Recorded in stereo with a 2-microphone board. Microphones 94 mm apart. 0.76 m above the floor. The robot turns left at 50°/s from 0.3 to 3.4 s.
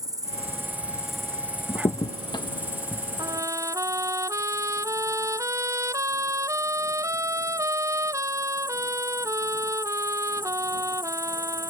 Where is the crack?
50° left (ahead or behind); by 3.0 s 30° left (ahead or behind).